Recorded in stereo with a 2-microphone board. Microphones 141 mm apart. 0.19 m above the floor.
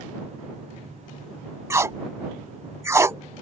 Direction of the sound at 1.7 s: 20° right (ahead or behind).